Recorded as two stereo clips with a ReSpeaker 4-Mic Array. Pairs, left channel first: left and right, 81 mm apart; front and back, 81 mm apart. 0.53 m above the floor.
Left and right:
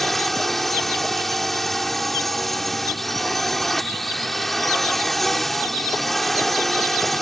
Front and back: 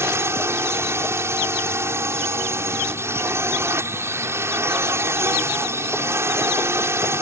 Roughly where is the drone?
Behind.